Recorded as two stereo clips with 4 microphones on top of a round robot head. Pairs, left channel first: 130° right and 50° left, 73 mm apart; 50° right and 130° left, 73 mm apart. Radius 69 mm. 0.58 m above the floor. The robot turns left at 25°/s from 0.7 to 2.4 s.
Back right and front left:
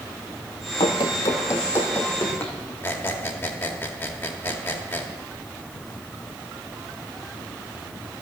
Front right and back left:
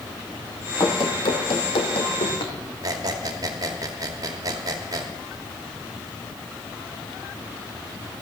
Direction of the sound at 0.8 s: 100° right.